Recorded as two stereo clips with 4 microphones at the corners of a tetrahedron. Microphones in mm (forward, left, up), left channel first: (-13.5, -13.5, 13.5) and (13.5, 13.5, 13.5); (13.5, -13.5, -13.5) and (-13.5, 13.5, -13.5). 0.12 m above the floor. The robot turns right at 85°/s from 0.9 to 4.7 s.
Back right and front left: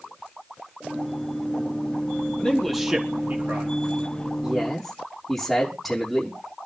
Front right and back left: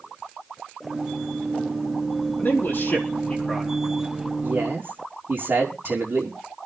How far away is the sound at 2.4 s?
About 4.5 m.